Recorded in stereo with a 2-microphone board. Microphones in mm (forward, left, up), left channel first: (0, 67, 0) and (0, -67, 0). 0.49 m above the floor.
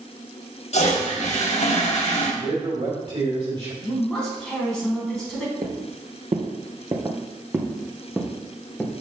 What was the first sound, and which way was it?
A toilet flushing, 70° left (ahead or behind).